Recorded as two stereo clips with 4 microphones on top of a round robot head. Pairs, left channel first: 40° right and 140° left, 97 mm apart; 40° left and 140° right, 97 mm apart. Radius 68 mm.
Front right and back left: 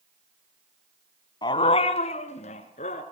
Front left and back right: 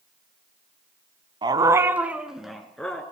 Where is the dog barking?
90° right, 1.3 m; by 3.0 s 40° right, 2.5 m.